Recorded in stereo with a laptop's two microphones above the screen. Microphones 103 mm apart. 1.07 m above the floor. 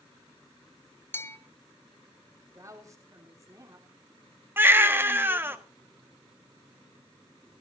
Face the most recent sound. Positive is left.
turn(degrees=-20)  # may be behind; listen again after turning